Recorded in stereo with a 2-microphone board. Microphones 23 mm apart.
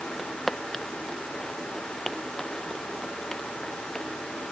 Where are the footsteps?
10° left (ahead or behind); by 4.1 s 35° left (ahead or behind).